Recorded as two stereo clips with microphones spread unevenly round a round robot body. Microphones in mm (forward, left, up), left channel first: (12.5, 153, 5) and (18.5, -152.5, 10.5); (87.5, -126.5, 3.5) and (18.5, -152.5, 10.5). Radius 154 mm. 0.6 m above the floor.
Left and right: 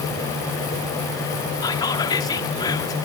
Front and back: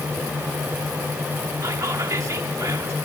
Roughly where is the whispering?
Behind.